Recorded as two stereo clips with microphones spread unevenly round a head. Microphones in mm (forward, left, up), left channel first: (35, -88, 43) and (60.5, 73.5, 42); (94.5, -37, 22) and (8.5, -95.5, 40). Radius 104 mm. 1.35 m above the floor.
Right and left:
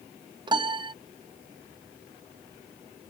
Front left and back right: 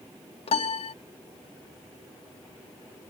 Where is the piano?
25° left.